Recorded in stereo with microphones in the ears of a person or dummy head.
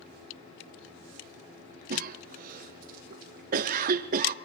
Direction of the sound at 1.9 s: 55° right (ahead or behind).